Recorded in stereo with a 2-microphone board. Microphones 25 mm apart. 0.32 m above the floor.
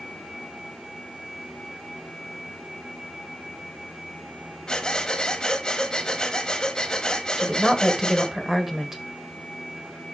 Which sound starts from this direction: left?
Breathing, at 4.7 s.